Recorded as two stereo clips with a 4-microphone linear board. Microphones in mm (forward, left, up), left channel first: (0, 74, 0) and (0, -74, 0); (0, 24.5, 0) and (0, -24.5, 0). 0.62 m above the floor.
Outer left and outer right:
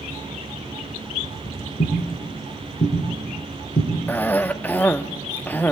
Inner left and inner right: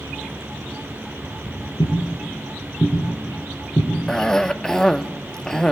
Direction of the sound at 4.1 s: 10° left (ahead or behind).